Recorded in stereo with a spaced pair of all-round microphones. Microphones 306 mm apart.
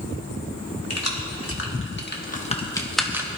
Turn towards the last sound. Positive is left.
turn(degrees=-10)  # may be behind; listen again after turning